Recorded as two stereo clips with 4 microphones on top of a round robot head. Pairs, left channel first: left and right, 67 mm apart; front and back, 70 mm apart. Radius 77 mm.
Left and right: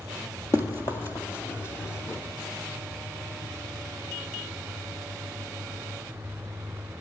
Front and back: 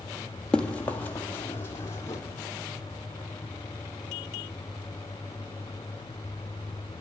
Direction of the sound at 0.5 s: 75° left.